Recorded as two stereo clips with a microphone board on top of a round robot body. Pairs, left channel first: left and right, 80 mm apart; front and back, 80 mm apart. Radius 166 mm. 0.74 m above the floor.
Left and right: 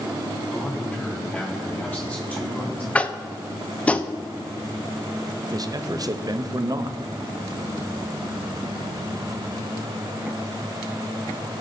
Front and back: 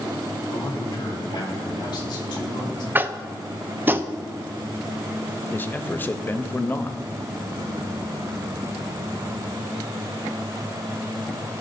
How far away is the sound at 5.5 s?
About 0.8 m.